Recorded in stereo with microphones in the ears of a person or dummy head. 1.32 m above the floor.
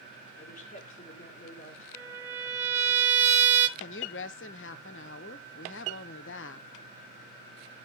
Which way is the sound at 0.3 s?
40° left (ahead or behind).